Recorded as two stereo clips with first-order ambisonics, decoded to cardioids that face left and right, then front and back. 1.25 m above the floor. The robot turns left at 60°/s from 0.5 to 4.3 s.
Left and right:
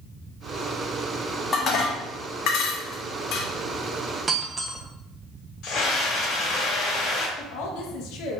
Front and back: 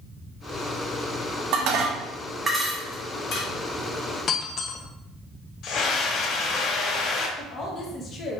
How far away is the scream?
About 1.6 m.